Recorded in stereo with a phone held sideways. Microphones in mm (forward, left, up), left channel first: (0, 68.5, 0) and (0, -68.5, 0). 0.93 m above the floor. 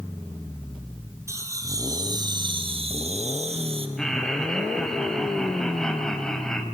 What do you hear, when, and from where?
1.3 s laughter: 20° right (ahead or behind), 3.5 m; by 3.9 s 40° right (ahead or behind), 1.5 m
4.0 s laughter: 5° left (ahead or behind), 6 m